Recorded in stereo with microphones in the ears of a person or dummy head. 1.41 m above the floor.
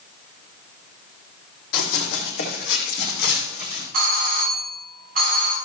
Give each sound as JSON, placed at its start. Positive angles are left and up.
{"t": 1.7, "sound": "running footsteps", "side_deg": 60, "distance_m": 4.0}
{"t": 3.9, "sound": "a doorbell", "side_deg": -45, "distance_m": 5.5}